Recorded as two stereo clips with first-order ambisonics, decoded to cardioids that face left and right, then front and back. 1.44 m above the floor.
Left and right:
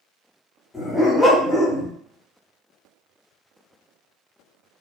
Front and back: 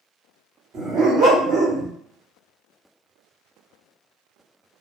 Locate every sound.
0.7 s a dog barking: 170° left, 1.2 m